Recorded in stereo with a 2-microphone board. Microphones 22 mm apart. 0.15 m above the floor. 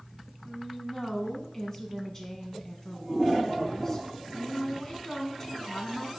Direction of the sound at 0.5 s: 25° left (ahead or behind).